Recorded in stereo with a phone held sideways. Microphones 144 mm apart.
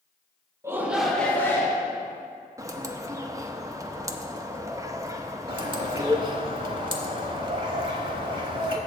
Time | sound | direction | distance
0.6 | a shout | 20° right (ahead or behind) | 0.9 m
2.6 | a bird | 20° right (ahead or behind) | 0.5 m
5.5 | a bird | 35° right (ahead or behind) | 1.0 m